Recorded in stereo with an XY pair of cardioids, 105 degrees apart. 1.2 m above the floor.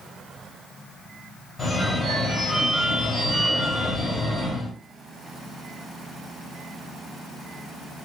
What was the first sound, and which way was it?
A phone ringing, 15° left.